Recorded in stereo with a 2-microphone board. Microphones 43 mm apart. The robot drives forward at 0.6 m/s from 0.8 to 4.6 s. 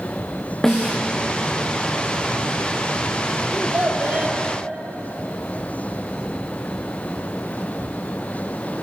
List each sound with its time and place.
0.6 s a snare drum: 10° left (ahead or behind), 4 m
3.5 s a child speaking: 30° right (ahead or behind), 2.5 m; by 4.4 s 40° right (ahead or behind), 2 m